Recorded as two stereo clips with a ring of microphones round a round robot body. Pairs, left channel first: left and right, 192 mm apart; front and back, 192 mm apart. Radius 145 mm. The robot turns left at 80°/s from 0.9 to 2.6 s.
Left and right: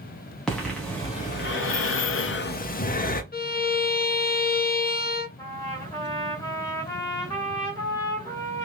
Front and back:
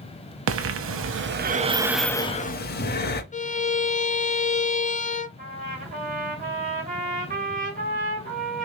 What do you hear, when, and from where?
0.5 s breathing: 175° left, 0.6 m; by 3.2 s 40° left, 0.6 m
3.3 s a violin: 50° left, 0.6 m
5.4 s a trumpet: 165° left, 1.9 m